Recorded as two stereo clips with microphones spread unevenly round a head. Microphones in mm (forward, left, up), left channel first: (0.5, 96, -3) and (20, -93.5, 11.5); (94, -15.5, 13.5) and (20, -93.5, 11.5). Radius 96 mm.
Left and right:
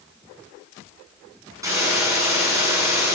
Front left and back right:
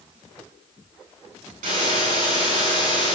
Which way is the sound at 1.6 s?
160° right.